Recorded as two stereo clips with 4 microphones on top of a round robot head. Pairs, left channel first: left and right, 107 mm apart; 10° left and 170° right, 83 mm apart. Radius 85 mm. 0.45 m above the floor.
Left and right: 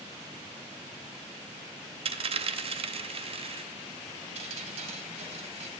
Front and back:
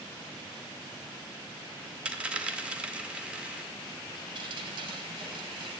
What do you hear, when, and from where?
2.0 s a dropped coin: 95° right, 0.6 m
4.3 s dripping: 130° right, 0.7 m